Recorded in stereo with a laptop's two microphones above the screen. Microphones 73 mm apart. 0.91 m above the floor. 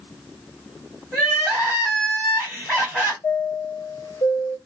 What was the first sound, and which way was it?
Crying, 10° left (ahead or behind).